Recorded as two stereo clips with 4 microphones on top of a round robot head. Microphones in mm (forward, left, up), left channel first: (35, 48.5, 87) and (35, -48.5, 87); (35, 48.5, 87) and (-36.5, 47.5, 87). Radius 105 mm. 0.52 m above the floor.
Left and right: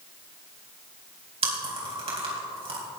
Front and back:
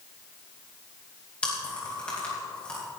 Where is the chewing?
75° right, 4.5 m.